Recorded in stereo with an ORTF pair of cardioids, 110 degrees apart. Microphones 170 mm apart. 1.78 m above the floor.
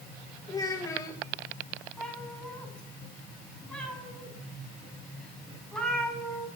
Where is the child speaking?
20° left, 1.9 m.